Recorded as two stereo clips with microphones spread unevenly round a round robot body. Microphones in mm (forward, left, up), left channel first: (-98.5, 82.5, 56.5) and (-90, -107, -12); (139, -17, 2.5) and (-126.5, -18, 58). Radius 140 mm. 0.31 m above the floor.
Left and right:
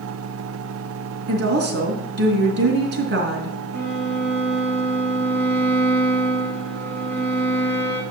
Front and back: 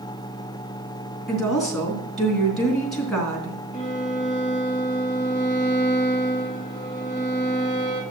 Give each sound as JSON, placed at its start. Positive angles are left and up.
{"t": 1.3, "sound": "a woman speaking", "azimuth_deg": -85, "distance_m": 3.0}
{"t": 3.7, "sound": "a violin", "azimuth_deg": -115, "distance_m": 5.0}